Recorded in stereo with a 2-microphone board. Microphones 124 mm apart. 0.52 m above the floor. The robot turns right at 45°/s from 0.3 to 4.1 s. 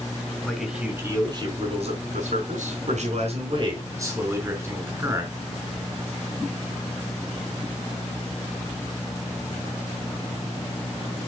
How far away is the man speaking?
About 4.5 m.